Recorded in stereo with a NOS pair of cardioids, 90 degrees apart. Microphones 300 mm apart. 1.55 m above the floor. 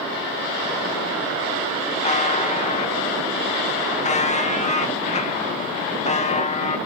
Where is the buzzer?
25° left, 1.9 m.